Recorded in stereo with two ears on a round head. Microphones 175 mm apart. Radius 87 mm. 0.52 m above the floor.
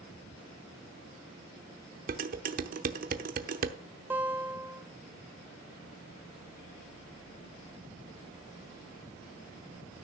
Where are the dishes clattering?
45° right (ahead or behind), 0.9 m.